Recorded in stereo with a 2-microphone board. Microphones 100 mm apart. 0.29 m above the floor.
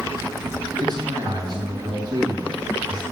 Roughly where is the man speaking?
Right.